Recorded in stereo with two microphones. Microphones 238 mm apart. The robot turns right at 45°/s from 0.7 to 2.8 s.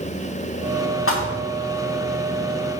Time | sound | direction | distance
1.1 | a thud | 65° left (ahead or behind) | 4 m